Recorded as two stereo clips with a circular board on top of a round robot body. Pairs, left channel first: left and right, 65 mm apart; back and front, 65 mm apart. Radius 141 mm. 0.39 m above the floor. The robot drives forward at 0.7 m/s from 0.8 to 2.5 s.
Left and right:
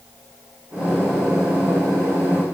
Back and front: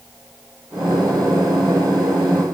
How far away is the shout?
No shout in this recording.